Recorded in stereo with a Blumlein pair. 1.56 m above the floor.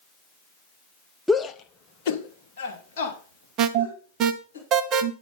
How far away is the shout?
About 0.7 m.